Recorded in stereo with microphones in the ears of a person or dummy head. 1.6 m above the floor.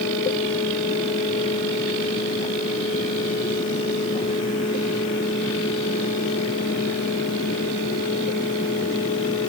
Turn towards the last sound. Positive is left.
No sound to turn to.